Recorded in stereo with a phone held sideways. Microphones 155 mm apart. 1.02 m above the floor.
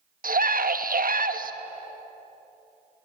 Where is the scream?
65° right (ahead or behind), 1.3 m.